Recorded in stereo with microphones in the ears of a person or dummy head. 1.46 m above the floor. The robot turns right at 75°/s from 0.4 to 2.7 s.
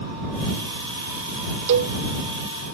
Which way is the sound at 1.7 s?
60° right (ahead or behind).